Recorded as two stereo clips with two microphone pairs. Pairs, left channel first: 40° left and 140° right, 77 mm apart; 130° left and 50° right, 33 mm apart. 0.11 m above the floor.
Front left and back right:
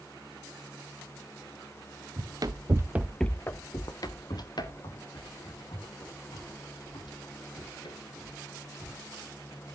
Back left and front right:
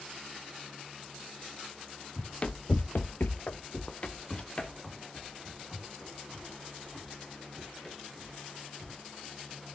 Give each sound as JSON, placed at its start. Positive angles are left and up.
{"t": 2.2, "sound": "running footsteps", "azimuth_deg": -165, "distance_m": 0.9}